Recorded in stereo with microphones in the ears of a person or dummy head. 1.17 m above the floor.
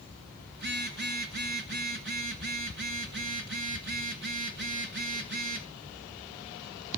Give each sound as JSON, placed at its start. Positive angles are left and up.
{"t": 0.5, "sound": "a phone buzzing", "side_deg": -50, "distance_m": 1.3}